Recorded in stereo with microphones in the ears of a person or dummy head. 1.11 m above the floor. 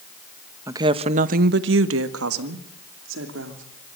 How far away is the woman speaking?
About 1.0 m.